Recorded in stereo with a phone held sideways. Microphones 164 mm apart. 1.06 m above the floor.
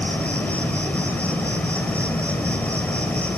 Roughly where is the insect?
Centre.